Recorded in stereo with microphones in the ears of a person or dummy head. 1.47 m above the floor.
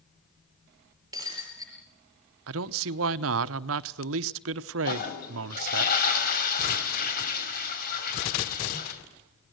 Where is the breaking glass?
20° right (ahead or behind), 6 m.